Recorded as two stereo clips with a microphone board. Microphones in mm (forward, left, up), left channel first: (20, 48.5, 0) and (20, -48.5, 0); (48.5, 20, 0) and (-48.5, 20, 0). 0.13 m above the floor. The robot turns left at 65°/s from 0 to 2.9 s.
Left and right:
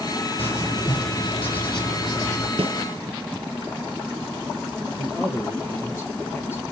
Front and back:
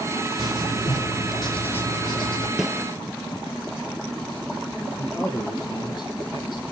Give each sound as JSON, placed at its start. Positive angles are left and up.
{"t": 0.4, "sound": "writing", "azimuth_deg": 155, "distance_m": 5.0}
{"t": 2.6, "sound": "a snare drum", "azimuth_deg": -90, "distance_m": 0.6}
{"t": 5.0, "sound": "a man speaking", "azimuth_deg": 30, "distance_m": 2.5}